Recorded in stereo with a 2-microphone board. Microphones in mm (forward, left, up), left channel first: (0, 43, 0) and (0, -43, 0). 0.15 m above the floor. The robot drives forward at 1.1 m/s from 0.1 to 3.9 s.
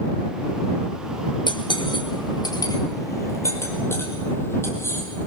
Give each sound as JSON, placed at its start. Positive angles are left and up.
{"t": 1.5, "sound": "cutlery clinking", "side_deg": 65, "distance_m": 1.7}